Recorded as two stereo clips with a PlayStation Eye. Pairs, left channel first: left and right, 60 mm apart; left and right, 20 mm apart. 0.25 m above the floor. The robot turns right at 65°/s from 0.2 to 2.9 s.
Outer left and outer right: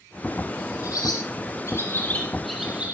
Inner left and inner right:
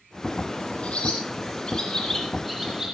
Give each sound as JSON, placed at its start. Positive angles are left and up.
{"t": 0.8, "sound": "a bird", "side_deg": 70, "distance_m": 6.0}